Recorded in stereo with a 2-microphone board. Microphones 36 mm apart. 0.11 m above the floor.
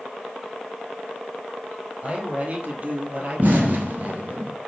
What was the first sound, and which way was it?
A man speaking, 35° right (ahead or behind).